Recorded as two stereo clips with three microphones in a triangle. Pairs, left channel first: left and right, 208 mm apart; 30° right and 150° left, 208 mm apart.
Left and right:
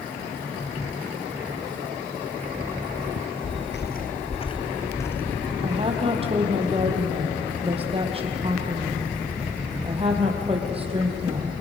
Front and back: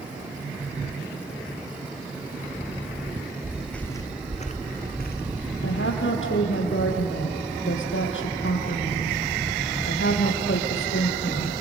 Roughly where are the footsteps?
Left.